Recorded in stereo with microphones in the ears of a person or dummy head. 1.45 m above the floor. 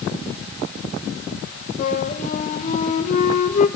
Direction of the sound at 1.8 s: 40° left (ahead or behind).